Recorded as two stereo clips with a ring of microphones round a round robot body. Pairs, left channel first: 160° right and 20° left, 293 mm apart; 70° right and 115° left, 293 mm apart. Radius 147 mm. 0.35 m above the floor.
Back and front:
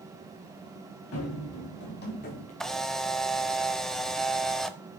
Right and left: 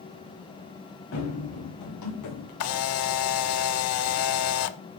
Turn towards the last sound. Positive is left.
turn(degrees=-70)